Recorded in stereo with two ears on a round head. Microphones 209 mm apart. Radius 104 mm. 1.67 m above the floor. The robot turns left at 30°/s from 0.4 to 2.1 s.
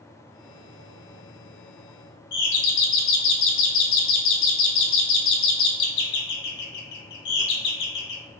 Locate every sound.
2.3 s a doorbell: 85° left, 0.9 m